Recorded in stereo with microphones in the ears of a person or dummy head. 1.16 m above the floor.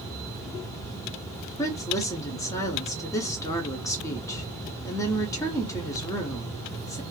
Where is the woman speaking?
15° left (ahead or behind), 0.8 m.